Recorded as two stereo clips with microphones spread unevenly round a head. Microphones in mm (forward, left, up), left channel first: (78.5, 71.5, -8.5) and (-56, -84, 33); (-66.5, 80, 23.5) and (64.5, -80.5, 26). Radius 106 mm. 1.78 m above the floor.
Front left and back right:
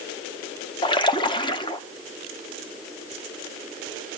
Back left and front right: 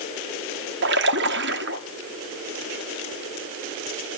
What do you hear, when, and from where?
0.8 s a splash: 25° right, 1.2 m